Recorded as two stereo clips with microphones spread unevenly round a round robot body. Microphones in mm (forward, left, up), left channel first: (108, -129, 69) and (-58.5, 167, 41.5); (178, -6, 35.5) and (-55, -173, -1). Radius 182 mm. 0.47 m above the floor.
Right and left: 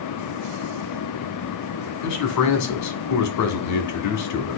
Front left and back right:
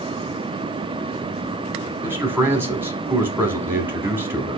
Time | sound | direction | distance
2.0 | a man speaking | 70° right | 1.2 m